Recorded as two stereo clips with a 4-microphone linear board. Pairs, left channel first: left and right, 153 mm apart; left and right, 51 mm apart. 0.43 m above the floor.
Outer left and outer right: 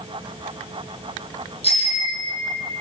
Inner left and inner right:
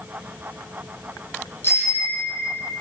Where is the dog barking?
No dog barking in this recording.